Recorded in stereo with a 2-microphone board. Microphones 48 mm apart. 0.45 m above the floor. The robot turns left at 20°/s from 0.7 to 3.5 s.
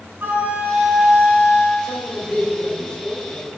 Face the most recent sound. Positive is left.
turn(degrees=125)